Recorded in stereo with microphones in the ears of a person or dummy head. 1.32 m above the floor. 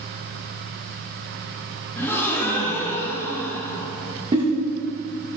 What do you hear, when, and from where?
2.0 s a gasp: 10° left (ahead or behind), 1.3 m
4.3 s a giggle: 25° right (ahead or behind), 2.0 m